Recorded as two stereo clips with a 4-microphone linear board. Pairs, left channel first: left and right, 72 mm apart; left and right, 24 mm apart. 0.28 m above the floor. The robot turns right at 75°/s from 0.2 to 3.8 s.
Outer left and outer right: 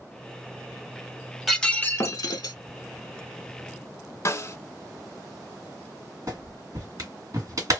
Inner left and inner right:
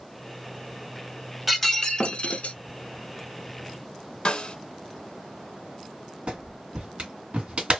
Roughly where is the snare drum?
Left.